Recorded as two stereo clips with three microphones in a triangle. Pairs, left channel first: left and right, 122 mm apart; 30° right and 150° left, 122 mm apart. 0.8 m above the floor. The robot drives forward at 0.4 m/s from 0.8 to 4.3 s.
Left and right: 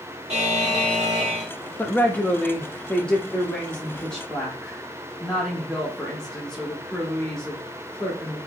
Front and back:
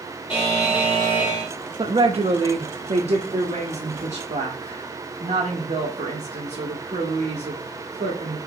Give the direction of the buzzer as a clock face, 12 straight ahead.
2 o'clock.